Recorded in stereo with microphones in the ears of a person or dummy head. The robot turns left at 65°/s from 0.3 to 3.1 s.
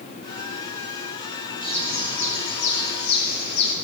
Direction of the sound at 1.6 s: 160° left.